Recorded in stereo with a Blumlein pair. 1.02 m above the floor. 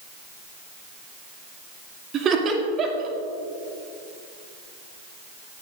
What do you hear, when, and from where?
2.1 s laughter: 30° right, 2.5 m